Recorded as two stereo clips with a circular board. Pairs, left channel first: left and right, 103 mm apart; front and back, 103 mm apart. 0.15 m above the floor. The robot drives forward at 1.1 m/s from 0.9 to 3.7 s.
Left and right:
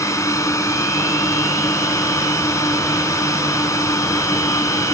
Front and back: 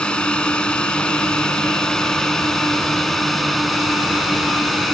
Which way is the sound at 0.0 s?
70° left.